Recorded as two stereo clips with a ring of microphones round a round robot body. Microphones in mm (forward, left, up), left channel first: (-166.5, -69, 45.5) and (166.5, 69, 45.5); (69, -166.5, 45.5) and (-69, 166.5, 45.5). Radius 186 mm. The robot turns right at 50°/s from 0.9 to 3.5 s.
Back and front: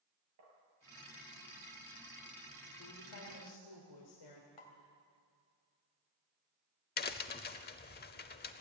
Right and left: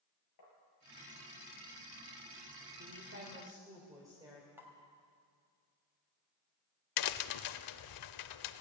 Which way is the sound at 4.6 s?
165° right.